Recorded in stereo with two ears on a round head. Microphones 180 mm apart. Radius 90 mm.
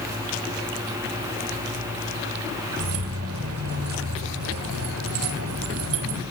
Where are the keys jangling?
85° right, 2.5 m.